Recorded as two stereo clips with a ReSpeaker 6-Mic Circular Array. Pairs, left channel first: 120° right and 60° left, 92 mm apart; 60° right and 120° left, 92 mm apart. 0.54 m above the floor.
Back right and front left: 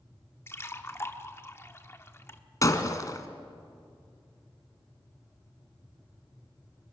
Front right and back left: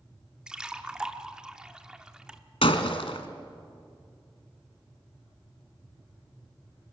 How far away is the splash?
About 1.0 m.